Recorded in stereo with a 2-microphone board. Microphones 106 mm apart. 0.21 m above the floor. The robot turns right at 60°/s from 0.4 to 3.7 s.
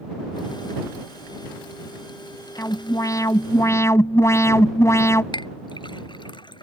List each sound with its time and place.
2.6 s an alarm: 55° left; by 5.2 s 120° left
5.3 s a clink: 55° left (ahead or behind)